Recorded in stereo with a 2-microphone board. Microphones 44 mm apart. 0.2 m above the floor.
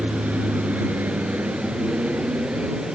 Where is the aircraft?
50° right (ahead or behind); by 2.9 s 40° right (ahead or behind).